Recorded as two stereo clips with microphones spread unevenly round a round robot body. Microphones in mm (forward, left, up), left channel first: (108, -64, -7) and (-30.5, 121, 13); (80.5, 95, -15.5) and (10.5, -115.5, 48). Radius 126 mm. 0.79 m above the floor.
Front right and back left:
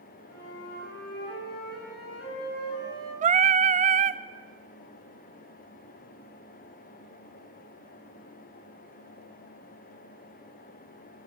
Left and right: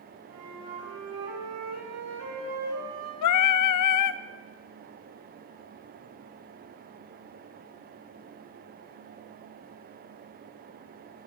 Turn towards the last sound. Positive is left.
turn(degrees=70)